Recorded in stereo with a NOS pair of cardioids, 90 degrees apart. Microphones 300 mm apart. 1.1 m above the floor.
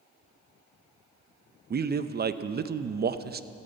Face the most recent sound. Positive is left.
turn(degrees=-35)